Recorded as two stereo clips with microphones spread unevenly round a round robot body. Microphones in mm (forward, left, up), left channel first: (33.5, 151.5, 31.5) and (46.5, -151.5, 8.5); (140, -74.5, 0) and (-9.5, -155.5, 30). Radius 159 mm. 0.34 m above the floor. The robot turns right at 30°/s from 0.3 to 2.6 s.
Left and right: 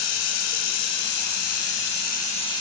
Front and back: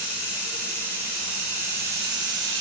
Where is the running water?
105° left, 0.9 m; by 2.6 s 170° left, 0.9 m.